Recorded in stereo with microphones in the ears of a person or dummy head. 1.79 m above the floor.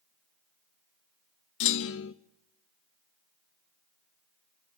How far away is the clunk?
About 0.7 m.